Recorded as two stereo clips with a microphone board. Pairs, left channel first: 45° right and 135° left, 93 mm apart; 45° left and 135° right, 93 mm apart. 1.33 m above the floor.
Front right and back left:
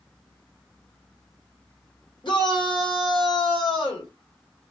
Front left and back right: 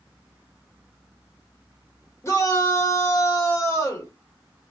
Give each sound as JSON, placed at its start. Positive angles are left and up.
{"t": 2.2, "sound": "a shout", "azimuth_deg": -15, "distance_m": 1.6}